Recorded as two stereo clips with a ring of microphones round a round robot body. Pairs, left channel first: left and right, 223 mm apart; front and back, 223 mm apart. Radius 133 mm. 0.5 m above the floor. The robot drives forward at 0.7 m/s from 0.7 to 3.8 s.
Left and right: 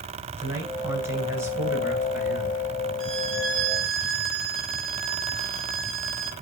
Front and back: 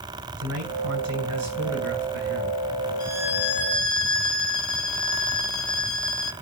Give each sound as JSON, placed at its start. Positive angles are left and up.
{"t": 0.4, "sound": "a man speaking", "azimuth_deg": -170, "distance_m": 10.0}
{"t": 3.0, "sound": "a violin", "azimuth_deg": -70, "distance_m": 2.5}